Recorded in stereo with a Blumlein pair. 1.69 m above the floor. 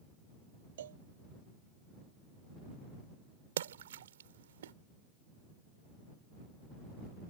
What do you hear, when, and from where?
0.8 s a cowbell: 60° right
3.6 s a splash: 60° right